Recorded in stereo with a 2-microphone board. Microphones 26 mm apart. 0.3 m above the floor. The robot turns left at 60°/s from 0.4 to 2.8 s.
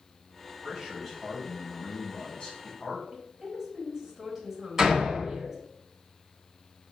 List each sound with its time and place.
0.6 s a man speaking: 155° right, 1.4 m; by 3.0 s 75° left, 1.4 m
3.1 s a woman speaking: 15° right (ahead or behind), 1.4 m
4.8 s a door slam: 15° right (ahead or behind), 1.4 m